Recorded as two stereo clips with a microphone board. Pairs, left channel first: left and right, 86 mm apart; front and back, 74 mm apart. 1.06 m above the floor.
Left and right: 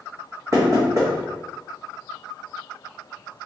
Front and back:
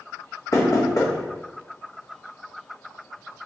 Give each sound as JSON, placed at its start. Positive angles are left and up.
{"t": 0.5, "sound": "knocking", "azimuth_deg": -40, "distance_m": 1.4}